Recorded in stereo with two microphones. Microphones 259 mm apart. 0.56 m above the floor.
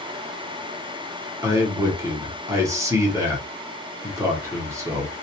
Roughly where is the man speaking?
Centre.